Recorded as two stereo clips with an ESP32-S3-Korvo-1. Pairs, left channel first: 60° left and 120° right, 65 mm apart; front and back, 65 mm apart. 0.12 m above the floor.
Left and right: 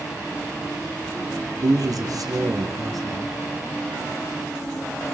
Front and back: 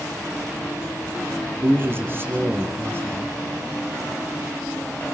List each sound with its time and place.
1.6 s a man speaking: 130° right, 3.5 m